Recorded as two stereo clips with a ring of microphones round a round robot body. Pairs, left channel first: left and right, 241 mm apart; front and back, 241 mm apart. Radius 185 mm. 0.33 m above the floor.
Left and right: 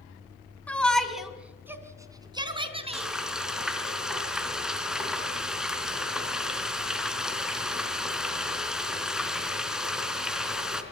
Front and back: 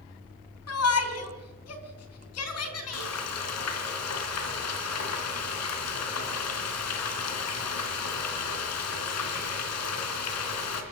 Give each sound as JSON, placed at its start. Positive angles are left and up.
{"t": 0.7, "sound": "a shout", "azimuth_deg": 5, "distance_m": 3.5}
{"t": 2.9, "sound": "frying", "azimuth_deg": -5, "distance_m": 3.0}